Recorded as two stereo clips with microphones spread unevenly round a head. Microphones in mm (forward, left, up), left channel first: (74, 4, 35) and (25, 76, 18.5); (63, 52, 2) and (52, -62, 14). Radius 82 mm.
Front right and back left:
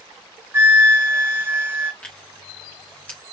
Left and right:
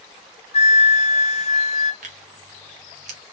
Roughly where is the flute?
Ahead left.